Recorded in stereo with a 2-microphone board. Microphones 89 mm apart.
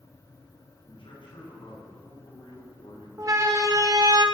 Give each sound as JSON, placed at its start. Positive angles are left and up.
{"t": 0.8, "sound": "a man speaking", "side_deg": 75, "distance_m": 9.5}
{"t": 3.2, "sound": "a siren", "side_deg": -40, "distance_m": 2.5}